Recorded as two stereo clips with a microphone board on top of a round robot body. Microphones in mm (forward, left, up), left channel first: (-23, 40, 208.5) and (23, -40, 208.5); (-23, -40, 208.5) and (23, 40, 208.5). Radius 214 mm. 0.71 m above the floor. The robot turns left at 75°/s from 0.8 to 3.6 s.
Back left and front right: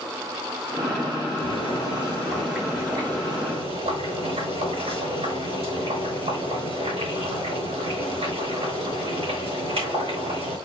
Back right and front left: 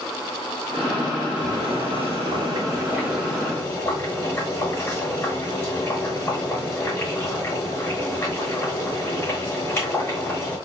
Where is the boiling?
115° left, 7 m; by 10.6 s 50° right, 7 m.